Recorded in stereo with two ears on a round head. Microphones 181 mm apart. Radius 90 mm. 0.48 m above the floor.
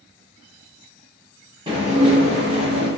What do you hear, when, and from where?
1.7 s dishes clattering: 20° right (ahead or behind), 0.7 m